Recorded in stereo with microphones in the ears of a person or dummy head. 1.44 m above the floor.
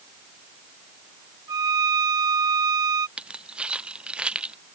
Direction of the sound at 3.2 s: 5° right (ahead or behind).